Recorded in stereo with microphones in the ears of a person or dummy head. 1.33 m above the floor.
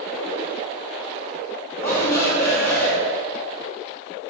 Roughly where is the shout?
Left.